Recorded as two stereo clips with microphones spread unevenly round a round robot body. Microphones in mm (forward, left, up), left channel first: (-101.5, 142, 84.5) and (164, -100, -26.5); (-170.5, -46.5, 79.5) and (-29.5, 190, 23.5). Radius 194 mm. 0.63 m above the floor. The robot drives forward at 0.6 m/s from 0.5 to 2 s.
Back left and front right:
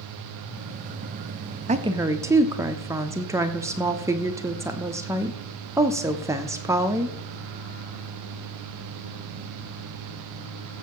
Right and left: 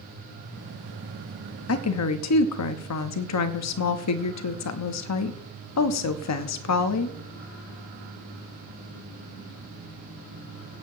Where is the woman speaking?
85° right, 0.8 m; by 7.2 s 105° right, 0.8 m.